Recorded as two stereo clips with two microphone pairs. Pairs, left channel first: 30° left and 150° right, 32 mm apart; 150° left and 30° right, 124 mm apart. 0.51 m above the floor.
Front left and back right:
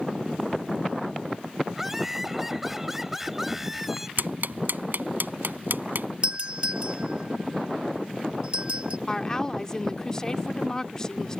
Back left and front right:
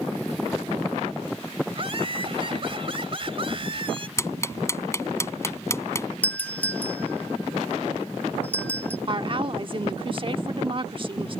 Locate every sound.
1.7 s laughter: 70° right
4.2 s ticking: 145° right
6.2 s a doorbell: 145° right
9.1 s a woman speaking: 30° right